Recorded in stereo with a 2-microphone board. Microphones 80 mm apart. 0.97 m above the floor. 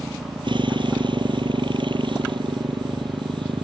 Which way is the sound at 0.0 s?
75° right (ahead or behind).